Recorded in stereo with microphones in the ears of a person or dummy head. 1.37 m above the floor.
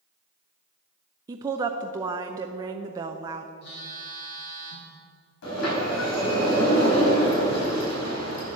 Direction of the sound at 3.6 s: 70° left (ahead or behind).